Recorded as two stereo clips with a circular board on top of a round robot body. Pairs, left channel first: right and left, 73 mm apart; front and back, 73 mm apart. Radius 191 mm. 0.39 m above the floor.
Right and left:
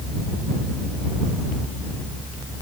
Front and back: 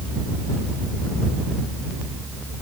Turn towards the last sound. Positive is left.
No sound to turn to.